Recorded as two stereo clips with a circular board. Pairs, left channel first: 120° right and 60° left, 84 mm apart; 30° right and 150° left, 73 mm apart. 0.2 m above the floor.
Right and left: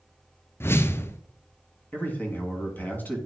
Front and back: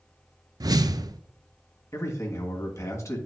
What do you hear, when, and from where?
0.6 s a whoosh: straight behind, 0.5 m
1.9 s a man speaking: 60° right, 2 m